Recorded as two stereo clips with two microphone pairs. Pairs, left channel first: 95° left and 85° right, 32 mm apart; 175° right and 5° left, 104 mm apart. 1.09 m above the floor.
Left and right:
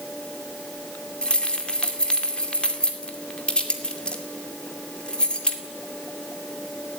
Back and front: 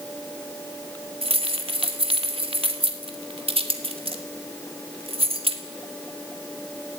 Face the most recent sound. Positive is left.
turn(degrees=30)